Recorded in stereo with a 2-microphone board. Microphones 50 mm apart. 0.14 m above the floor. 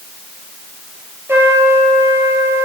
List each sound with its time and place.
1.3 s a trumpet: 55° right (ahead or behind), 3 m